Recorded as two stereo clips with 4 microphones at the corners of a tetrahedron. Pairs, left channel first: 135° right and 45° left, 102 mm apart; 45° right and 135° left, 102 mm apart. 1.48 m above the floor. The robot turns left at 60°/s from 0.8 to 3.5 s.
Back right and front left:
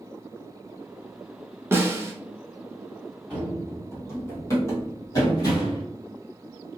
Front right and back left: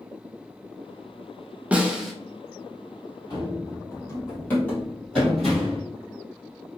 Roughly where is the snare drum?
Left.